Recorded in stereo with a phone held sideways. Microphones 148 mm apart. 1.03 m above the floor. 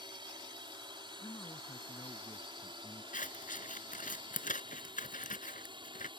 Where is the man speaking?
25° left (ahead or behind).